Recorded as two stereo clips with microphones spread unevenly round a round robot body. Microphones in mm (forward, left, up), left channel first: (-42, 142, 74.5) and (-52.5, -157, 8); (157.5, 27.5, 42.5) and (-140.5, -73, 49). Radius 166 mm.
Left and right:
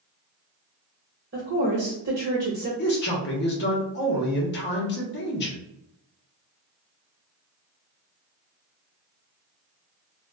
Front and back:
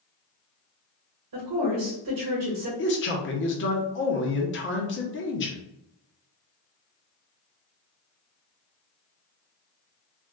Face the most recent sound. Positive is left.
turn(degrees=35)